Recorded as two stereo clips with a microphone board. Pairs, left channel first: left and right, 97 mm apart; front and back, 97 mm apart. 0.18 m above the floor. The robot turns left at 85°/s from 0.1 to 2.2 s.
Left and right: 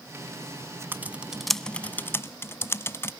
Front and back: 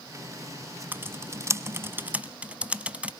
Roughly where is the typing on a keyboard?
Behind right.